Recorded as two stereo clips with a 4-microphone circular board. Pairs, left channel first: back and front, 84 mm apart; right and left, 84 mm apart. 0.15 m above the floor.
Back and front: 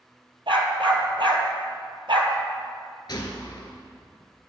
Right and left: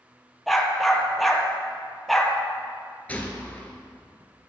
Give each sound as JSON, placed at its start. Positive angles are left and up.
{"t": 0.5, "sound": "a dog barking", "azimuth_deg": -5, "distance_m": 1.2}
{"t": 3.1, "sound": "a gunshot", "azimuth_deg": -160, "distance_m": 1.2}